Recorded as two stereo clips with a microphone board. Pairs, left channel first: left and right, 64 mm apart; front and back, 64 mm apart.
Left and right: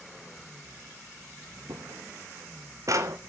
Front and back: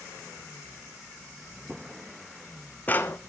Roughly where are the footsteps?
Right.